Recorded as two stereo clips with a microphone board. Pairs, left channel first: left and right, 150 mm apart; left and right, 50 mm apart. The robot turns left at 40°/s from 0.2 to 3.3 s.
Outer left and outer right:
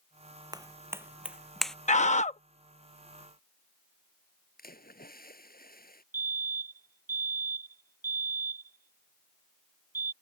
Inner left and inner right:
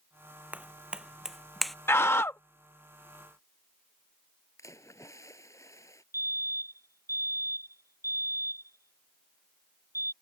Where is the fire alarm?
70° right (ahead or behind).